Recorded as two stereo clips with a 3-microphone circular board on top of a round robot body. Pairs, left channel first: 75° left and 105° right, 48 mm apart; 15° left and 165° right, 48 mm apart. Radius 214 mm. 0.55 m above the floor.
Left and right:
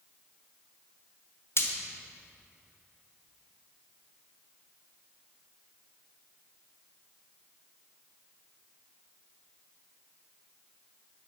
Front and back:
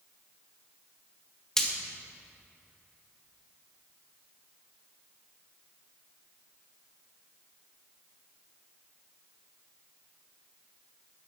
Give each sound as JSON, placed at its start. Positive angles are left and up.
{"t": 1.6, "sound": "frying", "azimuth_deg": 95, "distance_m": 1.6}